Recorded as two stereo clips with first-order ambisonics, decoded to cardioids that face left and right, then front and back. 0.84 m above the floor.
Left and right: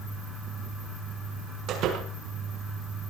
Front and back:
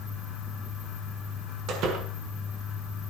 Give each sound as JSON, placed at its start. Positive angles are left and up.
{"t": 1.7, "sound": "a door slam", "azimuth_deg": -135, "distance_m": 6.0}